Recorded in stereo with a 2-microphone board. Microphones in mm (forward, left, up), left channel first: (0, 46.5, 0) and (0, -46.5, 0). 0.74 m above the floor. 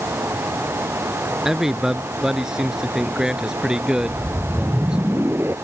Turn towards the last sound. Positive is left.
turn(degrees=-25)  # may be behind; listen again after turning